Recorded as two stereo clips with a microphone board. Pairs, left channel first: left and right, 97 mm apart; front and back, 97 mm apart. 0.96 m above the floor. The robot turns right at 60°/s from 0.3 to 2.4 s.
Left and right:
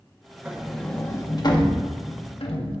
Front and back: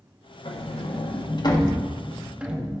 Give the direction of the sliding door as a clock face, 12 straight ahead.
1 o'clock.